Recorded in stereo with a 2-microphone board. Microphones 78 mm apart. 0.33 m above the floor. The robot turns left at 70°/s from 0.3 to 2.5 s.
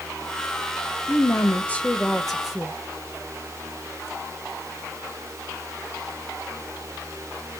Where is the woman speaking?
30° left (ahead or behind), 0.9 m; by 2.7 s 5° right (ahead or behind), 0.9 m.